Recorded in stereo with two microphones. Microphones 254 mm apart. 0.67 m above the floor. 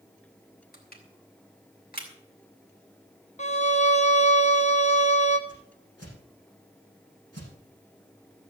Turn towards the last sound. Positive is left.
turn(degrees=80)